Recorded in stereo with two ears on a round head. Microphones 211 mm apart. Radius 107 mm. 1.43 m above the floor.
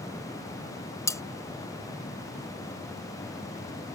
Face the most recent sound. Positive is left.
turn(degrees=10)  # may be behind; listen again after turning